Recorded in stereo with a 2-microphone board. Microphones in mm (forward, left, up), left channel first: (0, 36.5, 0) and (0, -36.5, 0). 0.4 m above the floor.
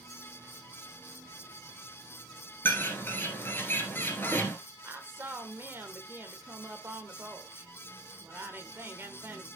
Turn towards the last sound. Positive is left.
turn(degrees=-30)  # may be behind; listen again after turning